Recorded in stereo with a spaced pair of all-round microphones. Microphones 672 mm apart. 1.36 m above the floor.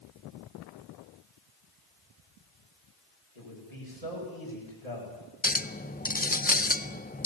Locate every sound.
3.4 s a man speaking: 65° left (ahead or behind), 7.5 m
5.4 s a clink: 15° left (ahead or behind), 0.7 m